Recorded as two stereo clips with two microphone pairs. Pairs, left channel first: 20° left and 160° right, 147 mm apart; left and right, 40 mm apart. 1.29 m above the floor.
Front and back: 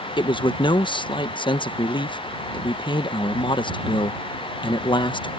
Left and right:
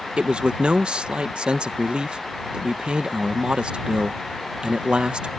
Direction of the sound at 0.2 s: 35° right.